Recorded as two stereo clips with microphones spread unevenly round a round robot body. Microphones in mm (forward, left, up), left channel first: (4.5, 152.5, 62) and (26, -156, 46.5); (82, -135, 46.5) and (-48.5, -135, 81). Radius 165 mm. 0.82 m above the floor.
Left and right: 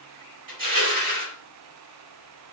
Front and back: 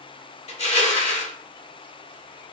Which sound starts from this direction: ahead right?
Crushing, at 0.5 s.